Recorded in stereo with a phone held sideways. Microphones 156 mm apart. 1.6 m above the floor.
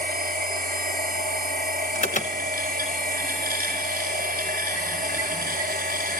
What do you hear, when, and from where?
0.0 s a machine running: 85° right, 5 m
1.9 s an alarm: 55° left (ahead or behind), 1.3 m